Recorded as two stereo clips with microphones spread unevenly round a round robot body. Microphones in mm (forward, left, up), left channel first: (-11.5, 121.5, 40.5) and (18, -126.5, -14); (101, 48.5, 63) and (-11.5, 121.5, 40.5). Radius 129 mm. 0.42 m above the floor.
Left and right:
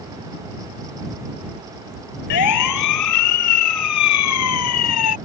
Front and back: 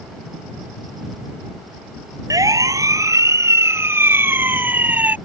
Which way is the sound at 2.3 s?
85° left.